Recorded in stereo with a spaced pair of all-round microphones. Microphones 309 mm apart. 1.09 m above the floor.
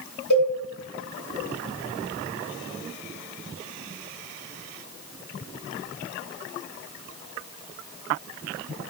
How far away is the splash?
No splash in this recording.